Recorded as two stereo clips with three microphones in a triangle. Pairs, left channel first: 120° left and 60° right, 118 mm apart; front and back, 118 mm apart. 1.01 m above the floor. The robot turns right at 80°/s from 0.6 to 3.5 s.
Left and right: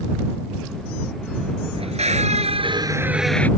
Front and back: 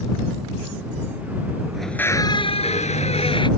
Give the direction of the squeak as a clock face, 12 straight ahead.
3 o'clock.